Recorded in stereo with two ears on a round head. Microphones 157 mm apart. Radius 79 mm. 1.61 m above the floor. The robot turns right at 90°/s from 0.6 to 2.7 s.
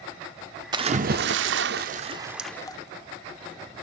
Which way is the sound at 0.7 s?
155° right.